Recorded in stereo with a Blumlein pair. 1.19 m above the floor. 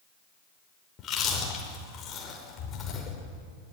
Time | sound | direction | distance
1.0 | chewing | 25° left | 5.5 m